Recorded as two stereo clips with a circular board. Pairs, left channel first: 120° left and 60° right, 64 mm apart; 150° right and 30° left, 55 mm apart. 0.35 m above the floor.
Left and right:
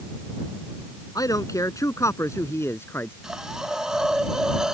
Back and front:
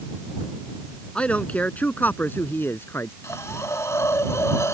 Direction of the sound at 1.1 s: 140° left.